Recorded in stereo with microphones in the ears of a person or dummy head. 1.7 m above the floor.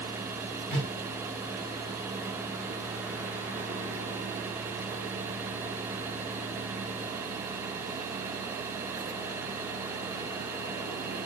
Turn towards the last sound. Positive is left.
turn(degrees=15)  # may be behind; listen again after turning